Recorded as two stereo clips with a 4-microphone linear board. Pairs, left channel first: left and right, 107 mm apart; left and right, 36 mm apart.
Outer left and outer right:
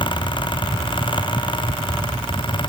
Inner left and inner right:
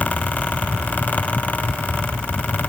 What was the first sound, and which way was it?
Only background noise.